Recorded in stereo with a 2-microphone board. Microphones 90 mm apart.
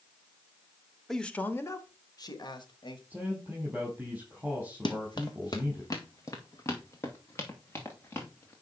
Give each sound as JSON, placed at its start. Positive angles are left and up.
{"t": 1.1, "sound": "a man speaking", "side_deg": 0, "distance_m": 0.9}
{"t": 3.1, "sound": "a man speaking", "side_deg": -15, "distance_m": 4.5}
{"t": 4.8, "sound": "running footsteps", "side_deg": 55, "distance_m": 1.2}